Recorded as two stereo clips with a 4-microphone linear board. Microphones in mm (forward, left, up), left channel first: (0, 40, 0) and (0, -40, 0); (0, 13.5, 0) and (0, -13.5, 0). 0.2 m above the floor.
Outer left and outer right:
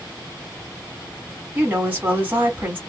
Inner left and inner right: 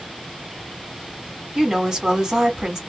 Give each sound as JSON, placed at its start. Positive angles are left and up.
{"t": 1.6, "sound": "a woman speaking", "side_deg": -25, "distance_m": 1.6}